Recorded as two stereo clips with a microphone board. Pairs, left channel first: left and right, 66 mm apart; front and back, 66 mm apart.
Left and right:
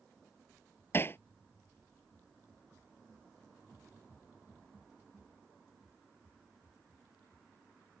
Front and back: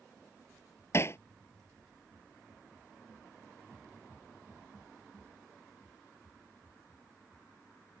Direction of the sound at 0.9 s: 40° left.